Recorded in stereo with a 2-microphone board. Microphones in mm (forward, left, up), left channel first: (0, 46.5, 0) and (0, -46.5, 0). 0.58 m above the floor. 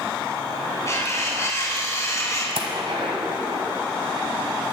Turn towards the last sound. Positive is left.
turn(degrees=-75)  # may be behind; listen again after turning